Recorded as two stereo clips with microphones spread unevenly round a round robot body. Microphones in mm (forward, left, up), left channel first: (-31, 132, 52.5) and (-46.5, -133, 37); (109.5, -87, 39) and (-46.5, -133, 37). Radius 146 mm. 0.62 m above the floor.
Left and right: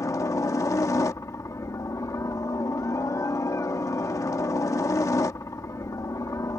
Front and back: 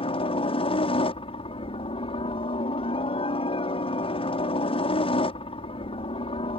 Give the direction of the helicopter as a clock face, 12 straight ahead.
12 o'clock.